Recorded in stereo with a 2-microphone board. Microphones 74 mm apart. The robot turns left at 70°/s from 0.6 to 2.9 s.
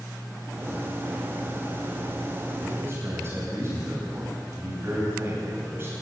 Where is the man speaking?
15° right (ahead or behind), 10 m; by 5.9 s 35° right (ahead or behind), 10 m.